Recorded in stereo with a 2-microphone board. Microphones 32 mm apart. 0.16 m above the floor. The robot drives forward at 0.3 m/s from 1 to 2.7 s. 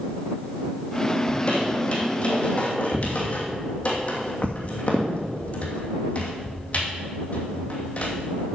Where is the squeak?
35° left (ahead or behind), 2.5 m; by 8.5 s 40° left (ahead or behind), 2 m.